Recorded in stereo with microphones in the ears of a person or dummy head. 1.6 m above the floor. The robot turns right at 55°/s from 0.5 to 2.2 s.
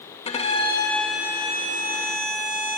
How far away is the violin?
About 2.5 m.